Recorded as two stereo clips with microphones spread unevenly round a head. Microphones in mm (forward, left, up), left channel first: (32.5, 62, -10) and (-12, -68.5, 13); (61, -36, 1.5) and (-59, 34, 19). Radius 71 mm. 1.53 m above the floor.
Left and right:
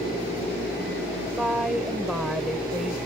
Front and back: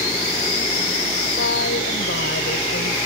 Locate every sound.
1.4 s a woman speaking: 25° right